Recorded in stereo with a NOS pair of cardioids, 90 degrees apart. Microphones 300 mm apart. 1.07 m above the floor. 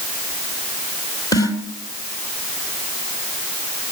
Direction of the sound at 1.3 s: 10° left.